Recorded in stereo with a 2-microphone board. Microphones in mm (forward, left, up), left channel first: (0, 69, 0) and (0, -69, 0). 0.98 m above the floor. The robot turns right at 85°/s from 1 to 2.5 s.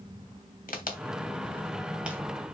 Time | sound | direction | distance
0.7 | a crack | 80° left | 2.5 m